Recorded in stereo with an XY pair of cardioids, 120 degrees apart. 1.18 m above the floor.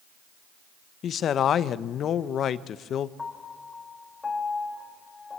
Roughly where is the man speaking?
Ahead left.